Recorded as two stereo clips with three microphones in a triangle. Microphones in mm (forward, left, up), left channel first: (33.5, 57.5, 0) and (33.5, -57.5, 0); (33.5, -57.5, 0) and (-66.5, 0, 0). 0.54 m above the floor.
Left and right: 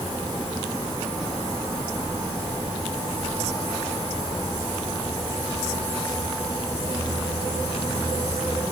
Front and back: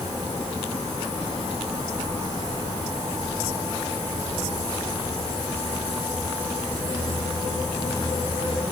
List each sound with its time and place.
Only background noise.